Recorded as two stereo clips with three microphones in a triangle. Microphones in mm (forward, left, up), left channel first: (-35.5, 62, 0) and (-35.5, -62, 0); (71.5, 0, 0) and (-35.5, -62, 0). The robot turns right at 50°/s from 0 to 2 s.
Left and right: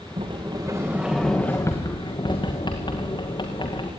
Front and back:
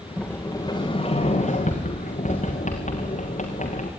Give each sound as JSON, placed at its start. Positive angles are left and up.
{"t": 0.2, "sound": "a sliding door", "azimuth_deg": -50, "distance_m": 4.5}